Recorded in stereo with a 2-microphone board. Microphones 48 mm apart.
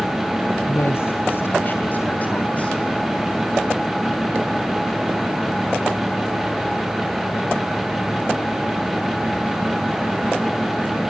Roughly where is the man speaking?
Left.